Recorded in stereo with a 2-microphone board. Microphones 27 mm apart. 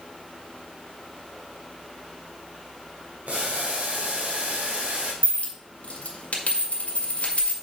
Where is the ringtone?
No ringtone in this recording.